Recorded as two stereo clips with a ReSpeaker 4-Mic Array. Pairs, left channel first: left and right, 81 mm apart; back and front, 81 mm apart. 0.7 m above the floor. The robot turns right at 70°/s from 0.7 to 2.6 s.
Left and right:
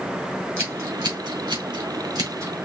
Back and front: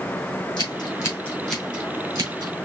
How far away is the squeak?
I don't hear a squeak.